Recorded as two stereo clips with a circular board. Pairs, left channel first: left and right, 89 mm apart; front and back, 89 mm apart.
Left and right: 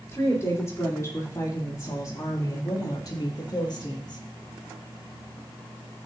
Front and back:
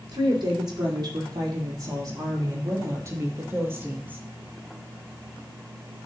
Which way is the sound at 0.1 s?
150° left.